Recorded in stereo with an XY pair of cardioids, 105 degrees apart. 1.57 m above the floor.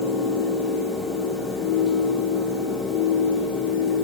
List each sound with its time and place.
0.0 s a fan: 65° left, 2.5 m